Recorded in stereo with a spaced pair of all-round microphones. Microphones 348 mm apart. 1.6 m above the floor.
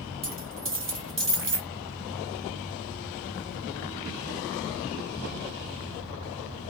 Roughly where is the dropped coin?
Right.